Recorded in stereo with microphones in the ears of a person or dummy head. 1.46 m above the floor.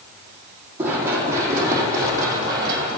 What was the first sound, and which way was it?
Running footsteps, 15° right (ahead or behind).